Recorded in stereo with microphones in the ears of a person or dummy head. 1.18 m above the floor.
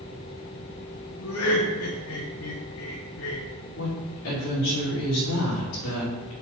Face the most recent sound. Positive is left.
turn(degrees=75)  # may be behind; listen again after turning